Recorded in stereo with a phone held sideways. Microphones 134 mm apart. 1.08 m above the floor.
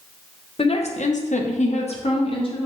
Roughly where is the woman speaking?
Left.